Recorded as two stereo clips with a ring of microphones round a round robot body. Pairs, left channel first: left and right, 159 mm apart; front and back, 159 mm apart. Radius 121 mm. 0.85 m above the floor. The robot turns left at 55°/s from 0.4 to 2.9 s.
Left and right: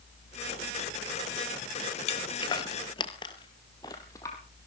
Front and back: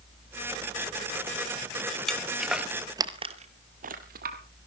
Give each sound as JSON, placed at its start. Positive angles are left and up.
{"t": 2.1, "sound": "footsteps", "azimuth_deg": 85, "distance_m": 1.0}